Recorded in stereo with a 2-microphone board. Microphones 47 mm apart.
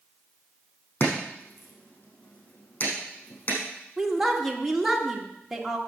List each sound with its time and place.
1.0 s chopping: 45° left (ahead or behind), 4.5 m
4.0 s a woman speaking: 5° right (ahead or behind), 1.5 m